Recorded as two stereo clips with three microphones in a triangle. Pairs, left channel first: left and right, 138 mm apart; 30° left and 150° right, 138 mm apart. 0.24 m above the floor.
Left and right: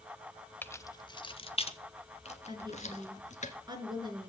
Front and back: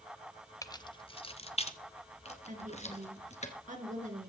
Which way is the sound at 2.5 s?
145° right.